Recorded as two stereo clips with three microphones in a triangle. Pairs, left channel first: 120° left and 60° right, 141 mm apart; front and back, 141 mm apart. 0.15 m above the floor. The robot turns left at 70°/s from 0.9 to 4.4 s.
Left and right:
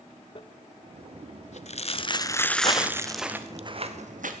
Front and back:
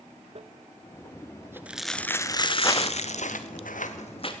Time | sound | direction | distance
0.3 | crumpling | 155° left | 0.6 m
2.6 | footsteps | 65° left | 1.0 m